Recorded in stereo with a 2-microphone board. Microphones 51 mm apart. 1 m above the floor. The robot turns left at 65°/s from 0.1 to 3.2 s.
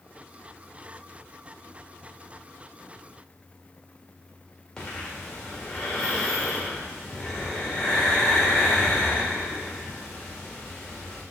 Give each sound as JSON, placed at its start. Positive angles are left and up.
{"t": 4.8, "sound": "breathing", "side_deg": 15, "distance_m": 2.0}